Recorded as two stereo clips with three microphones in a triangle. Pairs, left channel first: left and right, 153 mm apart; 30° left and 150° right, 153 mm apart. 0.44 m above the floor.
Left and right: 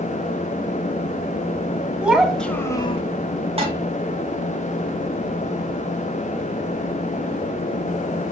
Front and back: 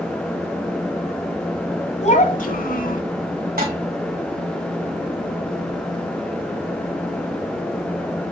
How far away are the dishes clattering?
About 2.5 m.